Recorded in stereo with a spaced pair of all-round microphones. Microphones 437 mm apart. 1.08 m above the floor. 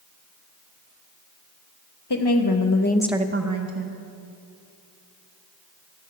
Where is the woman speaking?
65° left (ahead or behind), 1.2 m; by 4.0 s 60° right (ahead or behind), 1.2 m.